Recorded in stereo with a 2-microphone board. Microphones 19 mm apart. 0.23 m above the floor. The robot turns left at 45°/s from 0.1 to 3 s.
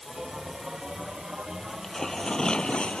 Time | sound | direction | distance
1.7 | tearing paper | 170° left | ?